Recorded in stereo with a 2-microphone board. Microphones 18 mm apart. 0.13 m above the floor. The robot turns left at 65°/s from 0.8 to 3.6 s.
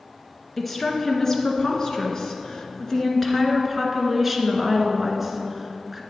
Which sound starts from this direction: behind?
A woman speaking, at 0.6 s.